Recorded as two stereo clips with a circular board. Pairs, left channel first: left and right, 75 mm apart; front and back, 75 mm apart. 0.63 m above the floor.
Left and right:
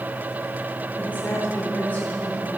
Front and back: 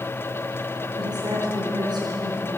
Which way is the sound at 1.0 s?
155° left.